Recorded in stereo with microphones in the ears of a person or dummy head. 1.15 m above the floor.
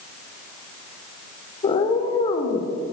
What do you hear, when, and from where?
1.6 s a cat meowing: 30° left (ahead or behind), 1.8 m